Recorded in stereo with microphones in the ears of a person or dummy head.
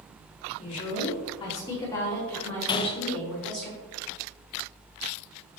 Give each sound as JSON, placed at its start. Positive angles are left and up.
{"t": 0.6, "sound": "a woman speaking", "side_deg": 40, "distance_m": 2.5}
{"t": 2.7, "sound": "a gunshot", "side_deg": 25, "distance_m": 0.5}